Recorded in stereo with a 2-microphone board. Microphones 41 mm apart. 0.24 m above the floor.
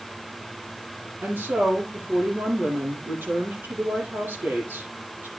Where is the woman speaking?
55° right (ahead or behind), 8 m.